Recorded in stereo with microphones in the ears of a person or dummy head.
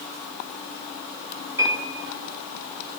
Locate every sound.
1.6 s a piano: 20° right (ahead or behind), 5 m